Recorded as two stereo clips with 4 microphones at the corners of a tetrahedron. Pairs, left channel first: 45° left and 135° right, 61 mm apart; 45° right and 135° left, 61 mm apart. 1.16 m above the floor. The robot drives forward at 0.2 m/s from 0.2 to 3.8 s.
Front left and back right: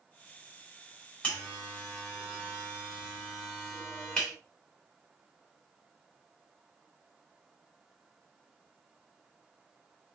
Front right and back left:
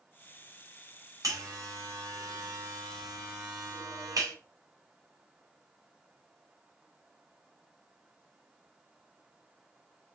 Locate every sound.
1.2 s a buzzer: 110° left, 2.5 m; by 4.3 s 120° left, 2.5 m